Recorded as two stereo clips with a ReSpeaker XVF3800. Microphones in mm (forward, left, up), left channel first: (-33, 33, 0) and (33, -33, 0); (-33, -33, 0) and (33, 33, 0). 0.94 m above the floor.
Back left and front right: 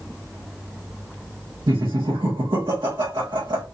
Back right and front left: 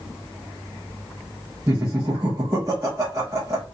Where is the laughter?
15° right, 1.5 m.